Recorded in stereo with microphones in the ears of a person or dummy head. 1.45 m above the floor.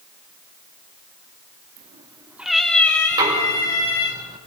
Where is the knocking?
15° right (ahead or behind), 5.5 m.